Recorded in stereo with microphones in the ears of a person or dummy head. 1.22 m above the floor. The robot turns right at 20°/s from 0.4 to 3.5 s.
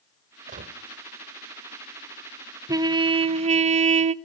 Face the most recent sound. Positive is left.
turn(degrees=-35)  # may be behind; listen again after turning